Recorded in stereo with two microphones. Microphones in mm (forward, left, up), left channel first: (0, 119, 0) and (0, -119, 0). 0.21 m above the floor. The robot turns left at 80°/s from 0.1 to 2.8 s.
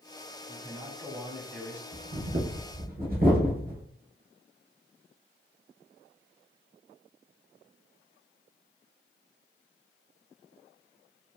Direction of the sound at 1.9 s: 60° right (ahead or behind).